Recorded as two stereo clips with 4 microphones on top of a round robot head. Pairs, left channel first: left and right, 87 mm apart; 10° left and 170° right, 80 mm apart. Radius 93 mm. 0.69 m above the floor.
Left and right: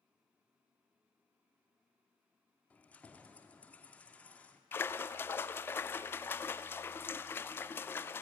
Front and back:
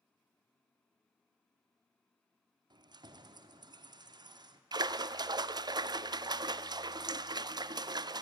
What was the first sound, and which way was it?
Keys jangling, 165° left.